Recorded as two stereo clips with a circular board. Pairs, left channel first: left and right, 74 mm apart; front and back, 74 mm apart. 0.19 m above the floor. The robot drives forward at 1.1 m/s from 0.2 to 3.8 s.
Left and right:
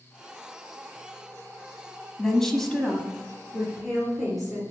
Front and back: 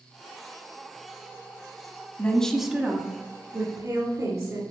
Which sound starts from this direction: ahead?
A woman speaking, at 2.2 s.